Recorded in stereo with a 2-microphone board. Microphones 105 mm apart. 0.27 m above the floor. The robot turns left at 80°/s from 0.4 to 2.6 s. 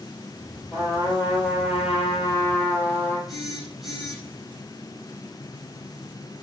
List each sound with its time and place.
0.7 s a trumpet: 165° left, 6.5 m; by 3.2 s 15° left, 6.5 m
3.3 s a phone buzzing: centre (ahead or behind), 6 m